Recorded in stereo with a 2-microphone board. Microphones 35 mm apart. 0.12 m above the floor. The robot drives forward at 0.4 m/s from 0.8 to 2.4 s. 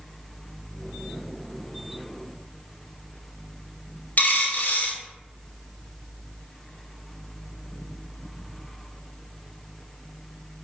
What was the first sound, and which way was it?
A dropped coin, 60° left (ahead or behind).